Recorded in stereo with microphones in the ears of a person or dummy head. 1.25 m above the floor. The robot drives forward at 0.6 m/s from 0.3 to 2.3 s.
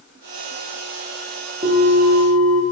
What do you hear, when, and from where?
1.6 s a bell: 40° right (ahead or behind), 0.8 m; by 2.6 s 65° right (ahead or behind), 0.5 m